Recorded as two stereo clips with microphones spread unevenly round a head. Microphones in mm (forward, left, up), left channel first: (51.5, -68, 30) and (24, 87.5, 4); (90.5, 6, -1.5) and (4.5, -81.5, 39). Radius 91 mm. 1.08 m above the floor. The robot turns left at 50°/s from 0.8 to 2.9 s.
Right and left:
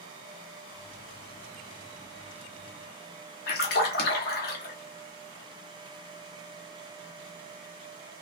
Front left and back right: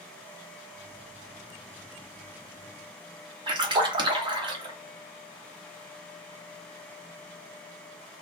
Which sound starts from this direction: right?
A splash, at 3.5 s.